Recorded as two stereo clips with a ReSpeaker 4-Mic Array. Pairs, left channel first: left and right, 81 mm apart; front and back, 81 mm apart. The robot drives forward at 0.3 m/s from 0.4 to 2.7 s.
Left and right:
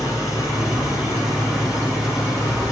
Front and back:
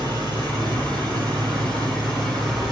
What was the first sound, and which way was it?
An engine running, 175° right.